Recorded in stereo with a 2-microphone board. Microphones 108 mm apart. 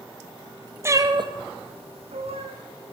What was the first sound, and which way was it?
A cat meowing, 25° right (ahead or behind).